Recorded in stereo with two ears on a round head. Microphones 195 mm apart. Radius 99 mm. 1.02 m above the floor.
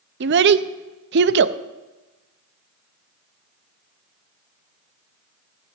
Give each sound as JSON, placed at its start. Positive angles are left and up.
{"t": 0.2, "sound": "a child speaking", "side_deg": -50, "distance_m": 0.5}